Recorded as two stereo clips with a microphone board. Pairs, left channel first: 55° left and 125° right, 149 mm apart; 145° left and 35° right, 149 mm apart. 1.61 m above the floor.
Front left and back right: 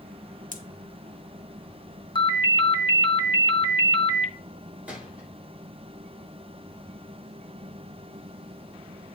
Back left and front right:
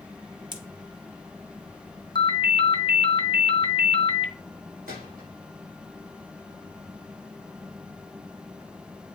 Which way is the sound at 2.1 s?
100° left.